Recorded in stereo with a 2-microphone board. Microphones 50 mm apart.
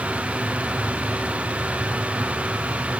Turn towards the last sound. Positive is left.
No sound to turn to.